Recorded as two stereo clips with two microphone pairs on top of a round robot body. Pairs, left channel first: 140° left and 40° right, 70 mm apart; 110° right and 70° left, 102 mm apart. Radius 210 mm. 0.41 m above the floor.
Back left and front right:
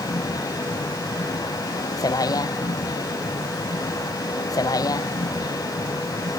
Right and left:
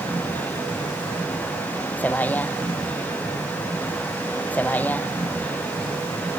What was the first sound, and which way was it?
A vehicle, 175° left.